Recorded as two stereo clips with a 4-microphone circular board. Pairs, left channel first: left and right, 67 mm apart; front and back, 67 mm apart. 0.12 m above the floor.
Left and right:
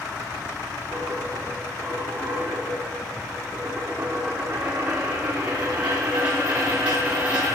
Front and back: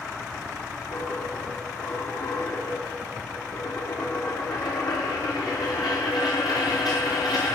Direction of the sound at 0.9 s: 20° right.